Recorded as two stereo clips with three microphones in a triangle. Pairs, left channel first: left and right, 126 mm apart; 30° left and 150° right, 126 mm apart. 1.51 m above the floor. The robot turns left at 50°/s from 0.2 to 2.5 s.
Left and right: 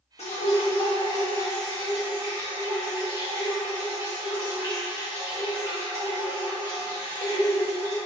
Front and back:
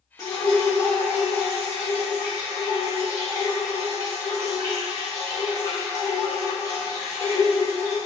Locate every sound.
0.2 s dripping: 85° left, 1.5 m; by 8.0 s 30° right, 1.5 m